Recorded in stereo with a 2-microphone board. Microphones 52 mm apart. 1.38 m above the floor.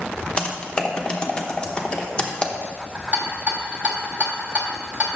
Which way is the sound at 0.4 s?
20° left (ahead or behind).